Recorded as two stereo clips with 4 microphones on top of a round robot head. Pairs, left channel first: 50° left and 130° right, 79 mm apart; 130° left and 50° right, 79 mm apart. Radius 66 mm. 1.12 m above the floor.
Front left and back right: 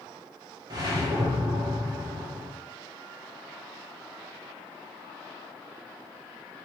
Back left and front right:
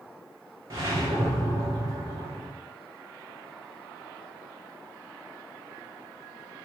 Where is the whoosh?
95° right, 1.3 m.